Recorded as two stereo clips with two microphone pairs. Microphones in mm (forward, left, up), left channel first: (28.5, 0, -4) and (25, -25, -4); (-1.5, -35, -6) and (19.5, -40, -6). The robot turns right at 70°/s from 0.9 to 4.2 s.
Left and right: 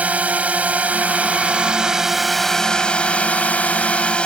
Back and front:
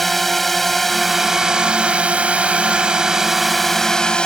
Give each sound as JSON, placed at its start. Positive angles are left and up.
{"t": 0.0, "sound": "a drone", "azimuth_deg": -105}